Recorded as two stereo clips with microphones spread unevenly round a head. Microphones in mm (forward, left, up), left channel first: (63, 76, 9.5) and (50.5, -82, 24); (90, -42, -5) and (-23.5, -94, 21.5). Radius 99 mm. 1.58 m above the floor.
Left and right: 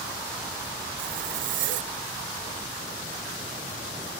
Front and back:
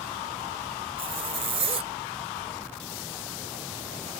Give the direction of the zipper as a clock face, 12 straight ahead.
4 o'clock.